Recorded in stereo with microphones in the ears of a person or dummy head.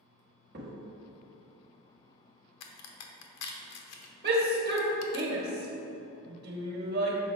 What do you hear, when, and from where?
0.5 s a crack: 45° right (ahead or behind), 1.4 m
2.6 s a crack: 80° left, 0.9 m
4.2 s a shout: 45° right (ahead or behind), 1.3 m